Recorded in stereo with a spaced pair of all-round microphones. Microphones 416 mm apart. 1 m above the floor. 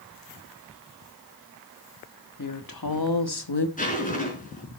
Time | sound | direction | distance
2.4 | a woman speaking | 50° left (ahead or behind) | 1.5 m
3.8 | a zipper | 20° left (ahead or behind) | 4 m